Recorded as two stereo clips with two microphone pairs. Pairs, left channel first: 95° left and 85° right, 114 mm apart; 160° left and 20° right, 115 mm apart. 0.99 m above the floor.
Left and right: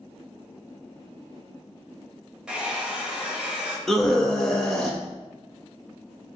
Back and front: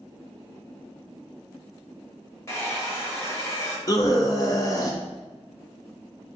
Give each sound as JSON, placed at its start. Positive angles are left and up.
{"t": 2.5, "sound": "a hair dryer", "azimuth_deg": -160, "distance_m": 0.8}
{"t": 3.9, "sound": "a scream", "azimuth_deg": 180, "distance_m": 0.7}